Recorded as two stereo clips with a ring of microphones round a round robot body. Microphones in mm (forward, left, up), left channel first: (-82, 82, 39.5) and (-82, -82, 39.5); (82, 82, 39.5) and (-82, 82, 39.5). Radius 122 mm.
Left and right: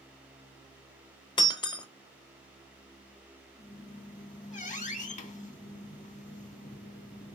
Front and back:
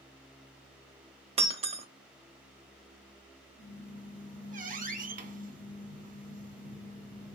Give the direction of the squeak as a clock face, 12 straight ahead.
7 o'clock.